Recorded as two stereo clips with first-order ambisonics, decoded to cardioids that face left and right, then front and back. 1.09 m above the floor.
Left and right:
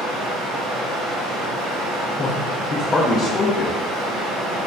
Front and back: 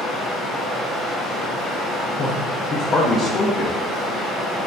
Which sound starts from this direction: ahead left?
A man speaking, at 2.2 s.